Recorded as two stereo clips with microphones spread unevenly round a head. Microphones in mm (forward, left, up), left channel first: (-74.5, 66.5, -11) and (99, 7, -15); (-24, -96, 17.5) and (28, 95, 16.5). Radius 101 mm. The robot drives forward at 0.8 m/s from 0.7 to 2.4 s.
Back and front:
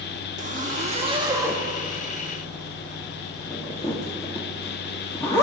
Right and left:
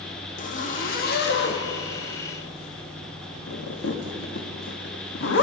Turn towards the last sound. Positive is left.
turn(degrees=-125)